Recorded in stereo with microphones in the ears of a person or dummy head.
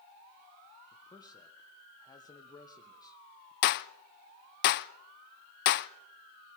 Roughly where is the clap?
Left.